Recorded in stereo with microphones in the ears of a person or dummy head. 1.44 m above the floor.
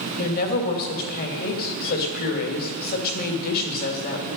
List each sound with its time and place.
0.2 s a woman speaking: 45° left (ahead or behind), 2.5 m